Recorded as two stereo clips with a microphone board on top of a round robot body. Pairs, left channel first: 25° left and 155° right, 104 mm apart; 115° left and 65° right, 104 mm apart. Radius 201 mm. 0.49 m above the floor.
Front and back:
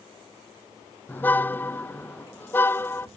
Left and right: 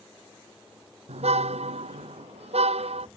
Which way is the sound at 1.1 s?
50° right.